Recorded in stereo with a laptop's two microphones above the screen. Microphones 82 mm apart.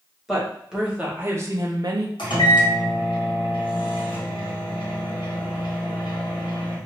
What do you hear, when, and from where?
0.3 s a woman speaking: centre (ahead or behind), 1.0 m; by 2.1 s 50° right (ahead or behind), 0.5 m
2.2 s a microwave: 80° left, 1.1 m